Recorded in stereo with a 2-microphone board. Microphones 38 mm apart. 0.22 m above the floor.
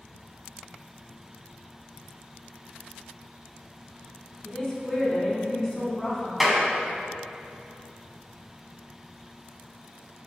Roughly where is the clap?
Centre.